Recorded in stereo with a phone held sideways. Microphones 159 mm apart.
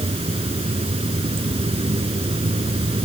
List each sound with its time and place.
0.0 s running water: 35° right (ahead or behind)